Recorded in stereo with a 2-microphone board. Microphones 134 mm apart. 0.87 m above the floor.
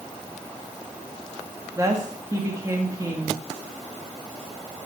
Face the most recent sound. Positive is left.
turn(degrees=-25)  # may be behind; listen again after turning